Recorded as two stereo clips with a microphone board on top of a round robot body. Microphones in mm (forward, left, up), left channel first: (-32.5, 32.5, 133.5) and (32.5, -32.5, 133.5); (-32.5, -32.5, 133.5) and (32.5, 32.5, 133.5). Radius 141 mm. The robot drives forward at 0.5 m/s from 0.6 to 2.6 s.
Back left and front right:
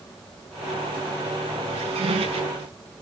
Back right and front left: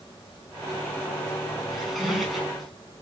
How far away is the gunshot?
I don't hear a gunshot.